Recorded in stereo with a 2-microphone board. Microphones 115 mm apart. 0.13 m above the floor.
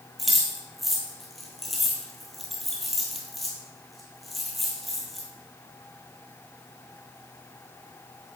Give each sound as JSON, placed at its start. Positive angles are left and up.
{"t": 0.2, "sound": "keys jangling", "side_deg": 0, "distance_m": 2.0}